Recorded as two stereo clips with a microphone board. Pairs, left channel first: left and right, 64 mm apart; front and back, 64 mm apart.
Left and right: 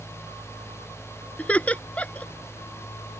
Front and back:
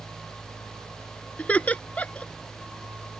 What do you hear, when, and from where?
1.4 s laughter: 45° left